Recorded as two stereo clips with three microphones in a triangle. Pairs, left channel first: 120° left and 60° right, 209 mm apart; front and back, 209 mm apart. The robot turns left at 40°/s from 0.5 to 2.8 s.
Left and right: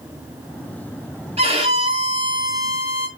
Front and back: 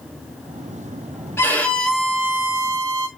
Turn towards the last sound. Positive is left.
turn(degrees=-125)